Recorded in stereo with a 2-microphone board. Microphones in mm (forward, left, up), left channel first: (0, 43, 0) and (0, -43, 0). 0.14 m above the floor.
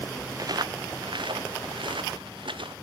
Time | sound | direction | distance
0.4 | footsteps | 45° right (ahead or behind) | 0.8 m